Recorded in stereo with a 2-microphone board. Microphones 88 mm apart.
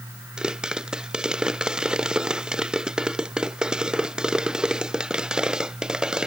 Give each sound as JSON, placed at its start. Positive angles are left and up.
{"t": 0.4, "sound": "a pop", "side_deg": -10}